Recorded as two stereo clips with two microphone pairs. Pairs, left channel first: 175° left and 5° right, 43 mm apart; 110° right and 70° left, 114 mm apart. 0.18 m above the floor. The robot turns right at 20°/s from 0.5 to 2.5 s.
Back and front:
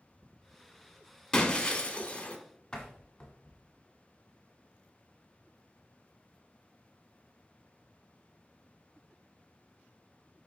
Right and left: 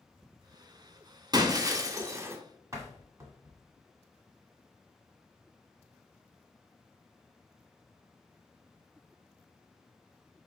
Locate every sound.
1.3 s breaking glass: 105° left, 0.7 m; by 2.4 s 125° left, 0.7 m
2.7 s a door slam: 105° left, 1.3 m